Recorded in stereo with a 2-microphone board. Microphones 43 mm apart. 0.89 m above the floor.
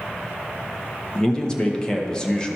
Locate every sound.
1.1 s a man speaking: 20° left (ahead or behind), 0.9 m